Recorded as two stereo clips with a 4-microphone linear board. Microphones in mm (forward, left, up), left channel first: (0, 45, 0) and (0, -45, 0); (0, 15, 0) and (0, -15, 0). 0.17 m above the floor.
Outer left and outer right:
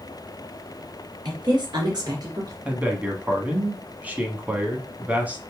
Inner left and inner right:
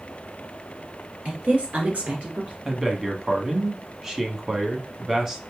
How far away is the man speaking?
About 1.1 m.